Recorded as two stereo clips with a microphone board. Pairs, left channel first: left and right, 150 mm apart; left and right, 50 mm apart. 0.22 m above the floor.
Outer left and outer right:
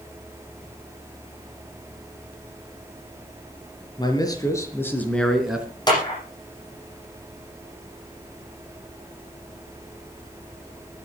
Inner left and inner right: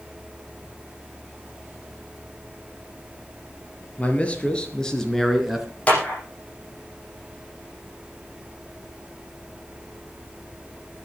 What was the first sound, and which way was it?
A man speaking, 30° left (ahead or behind).